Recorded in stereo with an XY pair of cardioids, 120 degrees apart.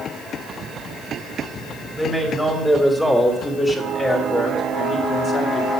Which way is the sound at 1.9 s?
5° left.